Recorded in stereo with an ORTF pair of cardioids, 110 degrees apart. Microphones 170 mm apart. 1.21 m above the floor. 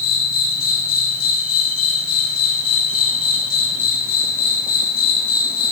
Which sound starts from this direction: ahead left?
An insect, at 0.0 s.